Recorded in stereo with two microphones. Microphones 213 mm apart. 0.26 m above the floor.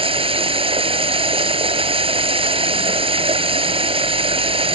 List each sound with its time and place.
0.0 s running water: 25° right (ahead or behind)